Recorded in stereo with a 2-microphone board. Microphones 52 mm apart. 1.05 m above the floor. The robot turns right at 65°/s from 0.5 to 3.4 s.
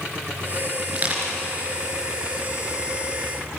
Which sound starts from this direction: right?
Crushing, at 0.9 s.